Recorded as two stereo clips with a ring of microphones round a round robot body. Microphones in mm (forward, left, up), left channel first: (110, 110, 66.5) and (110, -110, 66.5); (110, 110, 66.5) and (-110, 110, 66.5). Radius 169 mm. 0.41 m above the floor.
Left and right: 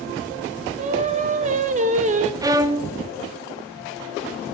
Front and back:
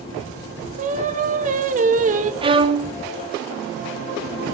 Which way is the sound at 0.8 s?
135° right.